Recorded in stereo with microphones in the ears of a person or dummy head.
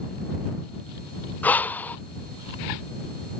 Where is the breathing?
10° left (ahead or behind).